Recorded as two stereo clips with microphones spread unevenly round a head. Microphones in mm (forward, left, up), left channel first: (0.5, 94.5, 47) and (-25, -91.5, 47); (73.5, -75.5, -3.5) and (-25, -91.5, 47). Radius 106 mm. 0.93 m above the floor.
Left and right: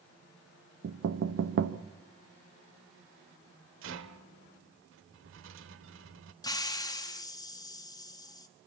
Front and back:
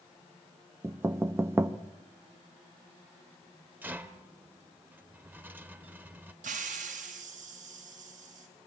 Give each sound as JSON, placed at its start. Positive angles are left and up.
{"t": 0.8, "sound": "knocking", "azimuth_deg": -95, "distance_m": 0.9}
{"t": 3.8, "sound": "a rattle", "azimuth_deg": -115, "distance_m": 1.1}
{"t": 6.4, "sound": "a hiss", "azimuth_deg": 150, "distance_m": 1.3}